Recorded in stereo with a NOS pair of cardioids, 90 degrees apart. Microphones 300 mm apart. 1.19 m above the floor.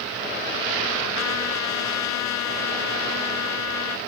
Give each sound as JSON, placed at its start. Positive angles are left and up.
{"t": 1.1, "sound": "a trumpet", "azimuth_deg": 65}